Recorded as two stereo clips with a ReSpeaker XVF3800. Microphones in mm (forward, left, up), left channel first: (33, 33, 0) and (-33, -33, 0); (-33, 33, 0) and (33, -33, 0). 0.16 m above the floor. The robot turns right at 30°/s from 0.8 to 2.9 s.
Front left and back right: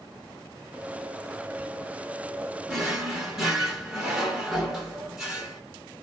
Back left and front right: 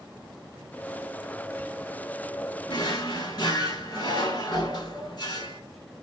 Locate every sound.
2.7 s a drawer: 140° left, 1.0 m; by 5.6 s 145° left, 1.0 m